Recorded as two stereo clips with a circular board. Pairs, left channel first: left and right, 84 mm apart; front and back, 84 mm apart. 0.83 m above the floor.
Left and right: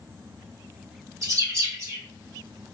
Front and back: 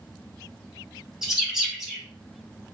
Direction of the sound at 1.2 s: 100° right.